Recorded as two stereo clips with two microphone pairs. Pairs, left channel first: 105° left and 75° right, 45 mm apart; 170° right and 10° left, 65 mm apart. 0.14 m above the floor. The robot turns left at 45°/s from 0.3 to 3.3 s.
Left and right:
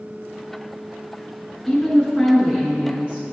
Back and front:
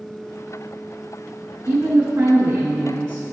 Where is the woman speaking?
40° left, 1.3 m; by 3.3 s 35° right, 1.3 m.